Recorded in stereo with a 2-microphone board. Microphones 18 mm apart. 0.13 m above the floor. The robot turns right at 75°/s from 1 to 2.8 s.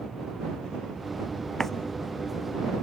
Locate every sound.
1.6 s a running tap: 20° left (ahead or behind); by 1.7 s 10° left (ahead or behind)